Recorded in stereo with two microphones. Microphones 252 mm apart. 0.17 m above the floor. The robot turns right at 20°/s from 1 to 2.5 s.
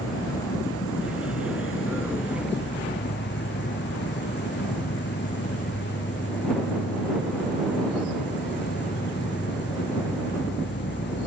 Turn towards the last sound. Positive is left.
turn(degrees=125)